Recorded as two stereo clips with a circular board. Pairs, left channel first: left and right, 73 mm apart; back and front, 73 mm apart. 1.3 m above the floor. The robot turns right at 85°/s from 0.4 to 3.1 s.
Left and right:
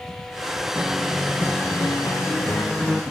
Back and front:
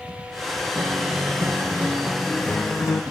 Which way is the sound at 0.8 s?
30° right.